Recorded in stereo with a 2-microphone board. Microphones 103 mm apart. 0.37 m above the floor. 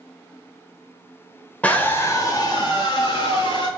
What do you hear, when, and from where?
1.6 s a scream: 15° left (ahead or behind), 1.0 m; by 3.7 s 60° left (ahead or behind), 1.7 m